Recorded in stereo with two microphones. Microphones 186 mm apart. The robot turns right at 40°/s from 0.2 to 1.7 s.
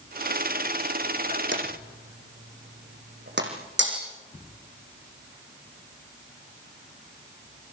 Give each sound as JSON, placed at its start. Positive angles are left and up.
{"t": 1.5, "sound": "a drawer", "side_deg": -70, "distance_m": 4.5}
{"t": 3.8, "sound": "breaking glass", "side_deg": -65, "distance_m": 5.5}